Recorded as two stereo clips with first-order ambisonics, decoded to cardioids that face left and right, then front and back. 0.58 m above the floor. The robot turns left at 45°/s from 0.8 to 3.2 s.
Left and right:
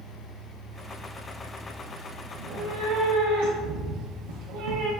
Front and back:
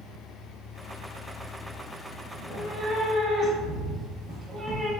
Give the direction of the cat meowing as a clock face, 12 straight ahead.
2 o'clock.